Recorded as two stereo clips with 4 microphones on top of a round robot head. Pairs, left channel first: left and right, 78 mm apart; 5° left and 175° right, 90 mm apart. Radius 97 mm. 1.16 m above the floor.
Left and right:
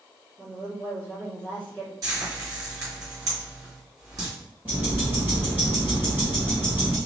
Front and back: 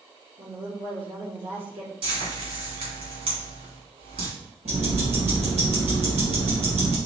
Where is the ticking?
165° right, 1.6 m.